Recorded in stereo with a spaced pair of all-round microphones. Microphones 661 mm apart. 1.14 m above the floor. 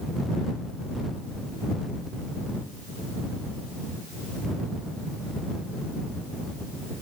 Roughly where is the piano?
I don't hear a piano.